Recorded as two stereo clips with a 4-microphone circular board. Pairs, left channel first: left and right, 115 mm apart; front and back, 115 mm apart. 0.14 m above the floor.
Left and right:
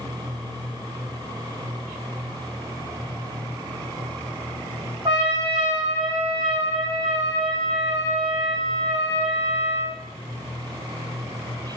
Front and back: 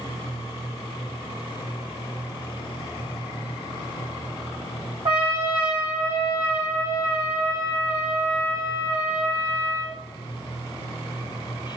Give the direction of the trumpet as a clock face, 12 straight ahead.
5 o'clock.